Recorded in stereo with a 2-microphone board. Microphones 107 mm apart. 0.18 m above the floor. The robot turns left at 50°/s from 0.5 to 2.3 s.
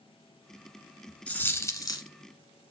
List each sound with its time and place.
1.3 s a dropped coin: 165° left, 0.9 m; by 2.1 s 125° left, 0.9 m